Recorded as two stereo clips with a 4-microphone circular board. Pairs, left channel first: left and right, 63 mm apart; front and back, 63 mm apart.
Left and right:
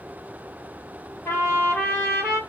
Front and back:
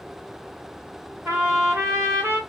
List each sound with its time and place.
1.2 s a trumpet: 130° left, 1.9 m